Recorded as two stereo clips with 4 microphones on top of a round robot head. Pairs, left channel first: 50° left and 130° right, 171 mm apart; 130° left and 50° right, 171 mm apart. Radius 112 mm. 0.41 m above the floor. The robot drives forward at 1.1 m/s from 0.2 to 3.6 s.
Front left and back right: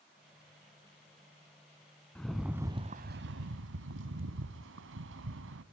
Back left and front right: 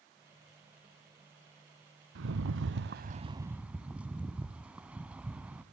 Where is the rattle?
35° right, 1.2 m; by 5.6 s 130° right, 0.9 m.